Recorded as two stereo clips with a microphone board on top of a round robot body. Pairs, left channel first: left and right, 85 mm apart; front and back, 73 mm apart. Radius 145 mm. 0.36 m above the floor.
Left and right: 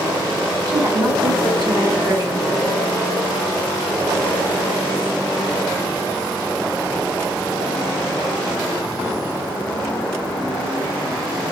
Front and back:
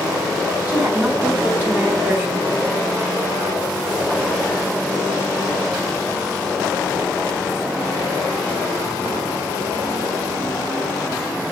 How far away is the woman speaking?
About 1.5 m.